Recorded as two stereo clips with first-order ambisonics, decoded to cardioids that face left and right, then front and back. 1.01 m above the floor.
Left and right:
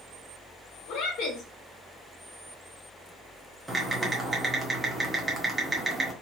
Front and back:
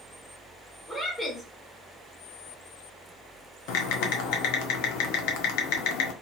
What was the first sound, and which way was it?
A woman speaking, 90° left.